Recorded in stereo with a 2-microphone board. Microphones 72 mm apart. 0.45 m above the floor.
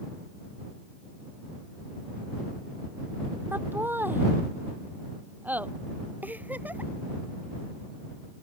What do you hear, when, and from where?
3.5 s laughter: 30° right (ahead or behind); by 5.7 s 20° right (ahead or behind)
6.2 s a giggle: 20° right (ahead or behind)